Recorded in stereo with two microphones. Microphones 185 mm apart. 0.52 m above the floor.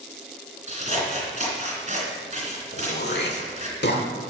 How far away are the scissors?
About 2.5 m.